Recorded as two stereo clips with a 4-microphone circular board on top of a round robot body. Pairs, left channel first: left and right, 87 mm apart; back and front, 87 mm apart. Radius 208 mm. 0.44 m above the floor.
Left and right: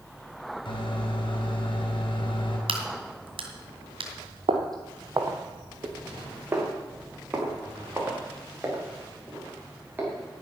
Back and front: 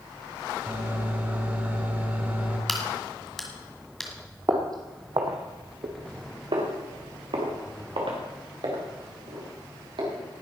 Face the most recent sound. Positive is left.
turn(degrees=-20)